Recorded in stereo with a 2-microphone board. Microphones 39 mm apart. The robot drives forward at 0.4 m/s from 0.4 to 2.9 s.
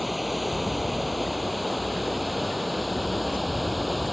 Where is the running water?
5° right (ahead or behind).